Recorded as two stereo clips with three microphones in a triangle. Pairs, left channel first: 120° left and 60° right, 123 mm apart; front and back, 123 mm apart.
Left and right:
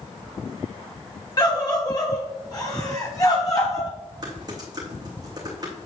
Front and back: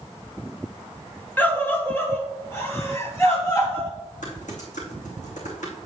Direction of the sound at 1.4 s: 70° left.